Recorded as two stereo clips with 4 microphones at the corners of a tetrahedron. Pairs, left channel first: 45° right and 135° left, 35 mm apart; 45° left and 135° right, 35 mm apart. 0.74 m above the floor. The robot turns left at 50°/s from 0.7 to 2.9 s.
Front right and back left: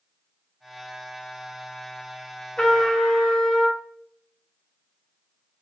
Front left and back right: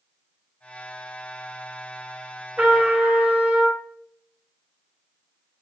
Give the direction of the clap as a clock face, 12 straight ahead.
I don't hear a clap.